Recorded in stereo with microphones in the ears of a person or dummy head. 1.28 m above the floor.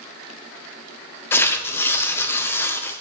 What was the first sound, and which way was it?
Tearing paper, 10° left (ahead or behind).